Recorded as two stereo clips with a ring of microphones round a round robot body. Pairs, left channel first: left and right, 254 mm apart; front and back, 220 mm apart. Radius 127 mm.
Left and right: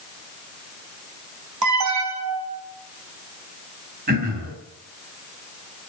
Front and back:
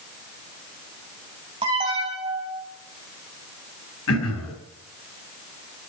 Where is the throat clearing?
35° right, 4 m.